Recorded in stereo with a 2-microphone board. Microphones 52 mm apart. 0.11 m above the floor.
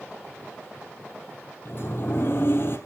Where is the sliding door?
50° left (ahead or behind), 2.5 m.